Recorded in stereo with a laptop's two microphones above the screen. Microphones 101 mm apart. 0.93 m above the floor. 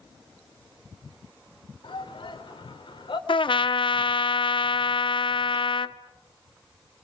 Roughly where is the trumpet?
Left.